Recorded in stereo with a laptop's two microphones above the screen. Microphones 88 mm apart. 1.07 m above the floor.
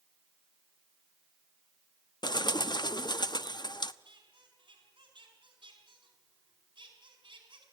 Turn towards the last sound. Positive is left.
turn(degrees=-60)  # may be behind; listen again after turning